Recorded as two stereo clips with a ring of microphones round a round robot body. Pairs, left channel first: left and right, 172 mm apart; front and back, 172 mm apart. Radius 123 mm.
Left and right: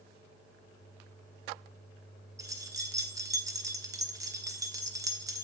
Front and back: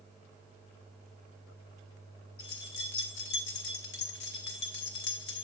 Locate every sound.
2.4 s keys jangling: 20° right, 1.3 m